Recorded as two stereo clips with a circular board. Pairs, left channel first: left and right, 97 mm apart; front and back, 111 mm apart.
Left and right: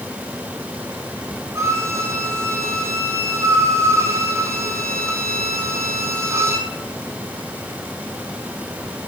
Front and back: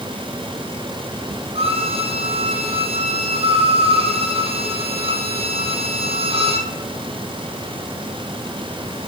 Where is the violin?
150° right, 1.9 m.